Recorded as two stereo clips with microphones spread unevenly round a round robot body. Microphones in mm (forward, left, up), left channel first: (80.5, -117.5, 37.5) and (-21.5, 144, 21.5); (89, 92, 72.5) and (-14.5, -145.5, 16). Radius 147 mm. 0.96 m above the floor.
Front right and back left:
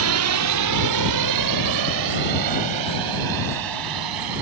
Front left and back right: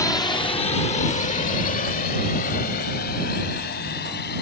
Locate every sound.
0.0 s a drone: 150° left; by 4.4 s 125° left